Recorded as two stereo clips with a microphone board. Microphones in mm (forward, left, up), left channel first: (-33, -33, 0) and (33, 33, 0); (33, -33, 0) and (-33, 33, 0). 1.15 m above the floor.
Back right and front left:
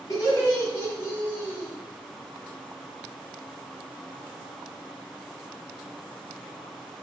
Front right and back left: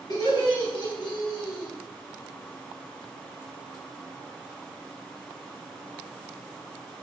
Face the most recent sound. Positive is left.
turn(degrees=-65)